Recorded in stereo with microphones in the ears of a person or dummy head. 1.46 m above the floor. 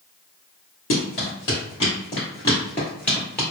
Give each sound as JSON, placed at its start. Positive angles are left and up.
{"t": 0.9, "sound": "running footsteps", "side_deg": 35, "distance_m": 1.6}